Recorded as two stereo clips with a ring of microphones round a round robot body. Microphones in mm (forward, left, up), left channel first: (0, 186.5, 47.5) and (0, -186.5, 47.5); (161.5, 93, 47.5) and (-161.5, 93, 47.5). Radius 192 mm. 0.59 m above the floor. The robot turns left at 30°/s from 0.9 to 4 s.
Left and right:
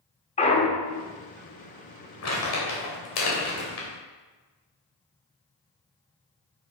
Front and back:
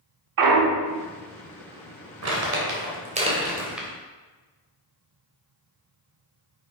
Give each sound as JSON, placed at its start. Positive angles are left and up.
{"t": 0.4, "sound": "a clunk", "azimuth_deg": 165, "distance_m": 1.1}
{"t": 2.2, "sound": "crumpling", "azimuth_deg": 140, "distance_m": 3.0}